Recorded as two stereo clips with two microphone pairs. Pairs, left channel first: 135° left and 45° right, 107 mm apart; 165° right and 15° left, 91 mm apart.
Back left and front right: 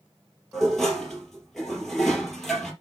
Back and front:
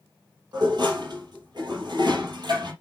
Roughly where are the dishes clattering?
Ahead left.